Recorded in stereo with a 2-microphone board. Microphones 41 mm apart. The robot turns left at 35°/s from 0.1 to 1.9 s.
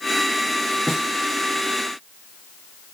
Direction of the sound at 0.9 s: Centre (ahead or behind).